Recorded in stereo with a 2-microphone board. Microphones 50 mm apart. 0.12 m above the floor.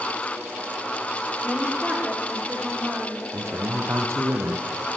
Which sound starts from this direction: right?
A man speaking, at 3.3 s.